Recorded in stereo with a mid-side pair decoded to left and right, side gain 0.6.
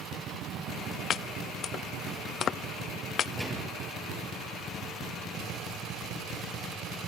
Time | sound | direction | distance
1.1 | chopping | 50° left | 0.7 m
3.4 | a gunshot | straight ahead | 9.5 m